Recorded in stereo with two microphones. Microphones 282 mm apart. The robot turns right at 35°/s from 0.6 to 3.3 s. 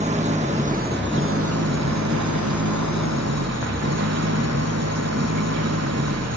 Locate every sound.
0.0 s an engine running: 155° right; by 6.4 s 60° right